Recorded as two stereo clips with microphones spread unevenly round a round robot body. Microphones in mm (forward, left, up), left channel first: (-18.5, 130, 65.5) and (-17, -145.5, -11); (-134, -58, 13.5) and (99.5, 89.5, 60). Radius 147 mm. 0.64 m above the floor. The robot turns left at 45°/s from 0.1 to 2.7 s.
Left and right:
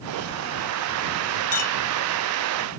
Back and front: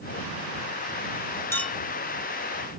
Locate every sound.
1.5 s a clink: 135° left; by 1.8 s 125° left